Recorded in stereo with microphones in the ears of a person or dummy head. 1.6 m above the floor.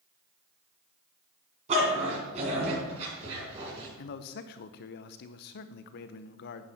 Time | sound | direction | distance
1.7 | a dog barking | 35° right (ahead or behind) | 4 m
4.0 | a man speaking | 50° left (ahead or behind) | 0.7 m